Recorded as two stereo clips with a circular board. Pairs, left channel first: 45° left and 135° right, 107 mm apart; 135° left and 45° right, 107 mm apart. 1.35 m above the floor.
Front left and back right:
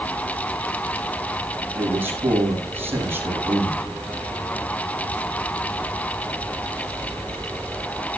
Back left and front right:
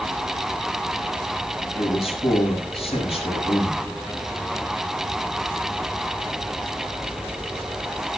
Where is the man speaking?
155° left, 7.5 m.